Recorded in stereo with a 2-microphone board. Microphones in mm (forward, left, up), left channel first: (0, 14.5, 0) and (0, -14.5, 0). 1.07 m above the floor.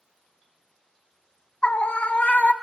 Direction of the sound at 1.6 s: 45° left (ahead or behind).